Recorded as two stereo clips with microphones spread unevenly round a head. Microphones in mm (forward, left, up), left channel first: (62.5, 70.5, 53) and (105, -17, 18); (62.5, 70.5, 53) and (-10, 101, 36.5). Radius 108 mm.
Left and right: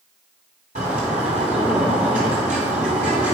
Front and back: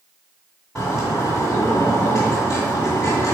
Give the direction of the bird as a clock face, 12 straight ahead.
3 o'clock.